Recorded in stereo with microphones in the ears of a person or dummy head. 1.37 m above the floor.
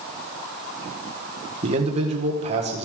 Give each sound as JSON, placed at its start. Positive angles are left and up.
{"t": 1.6, "sound": "a man speaking", "side_deg": -35, "distance_m": 1.4}